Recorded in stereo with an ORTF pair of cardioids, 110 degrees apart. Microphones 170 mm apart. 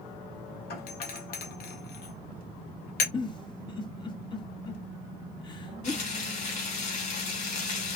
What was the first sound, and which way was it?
A doorbell, 65° left.